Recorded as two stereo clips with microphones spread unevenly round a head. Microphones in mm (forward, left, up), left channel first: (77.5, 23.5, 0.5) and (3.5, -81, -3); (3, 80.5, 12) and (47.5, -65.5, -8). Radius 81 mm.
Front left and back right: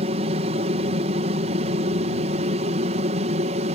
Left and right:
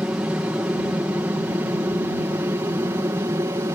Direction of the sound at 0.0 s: 150° right.